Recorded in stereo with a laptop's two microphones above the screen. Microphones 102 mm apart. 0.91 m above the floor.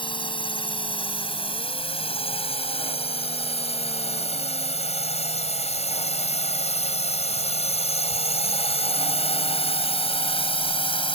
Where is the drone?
50° left (ahead or behind); by 11.2 s 55° left (ahead or behind).